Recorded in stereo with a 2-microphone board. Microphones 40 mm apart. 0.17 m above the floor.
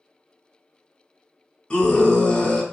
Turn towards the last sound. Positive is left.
turn(degrees=20)  # may be behind; listen again after turning